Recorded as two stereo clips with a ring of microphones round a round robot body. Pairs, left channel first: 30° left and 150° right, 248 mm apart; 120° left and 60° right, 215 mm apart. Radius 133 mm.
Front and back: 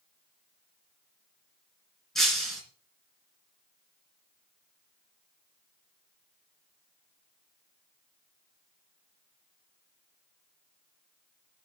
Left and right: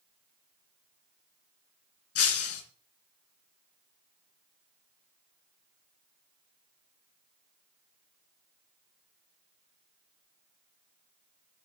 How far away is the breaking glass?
About 3 m.